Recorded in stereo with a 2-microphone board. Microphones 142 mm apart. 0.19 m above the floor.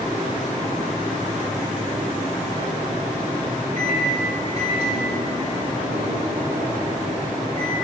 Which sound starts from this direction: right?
A microwave, at 3.8 s.